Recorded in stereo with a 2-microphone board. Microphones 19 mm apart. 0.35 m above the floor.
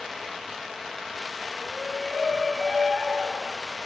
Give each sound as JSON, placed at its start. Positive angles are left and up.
{"t": 1.6, "sound": "a shout", "side_deg": -70, "distance_m": 5.5}